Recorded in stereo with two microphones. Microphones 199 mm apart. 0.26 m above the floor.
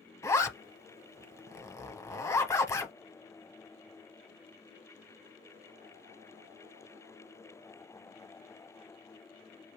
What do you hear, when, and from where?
0.2 s a zipper: 15° left (ahead or behind), 0.8 m